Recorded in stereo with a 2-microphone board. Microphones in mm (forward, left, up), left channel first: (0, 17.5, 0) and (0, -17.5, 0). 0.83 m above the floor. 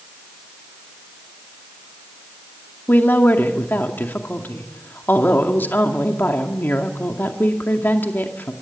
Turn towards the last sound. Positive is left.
turn(degrees=65)  # may be behind; listen again after turning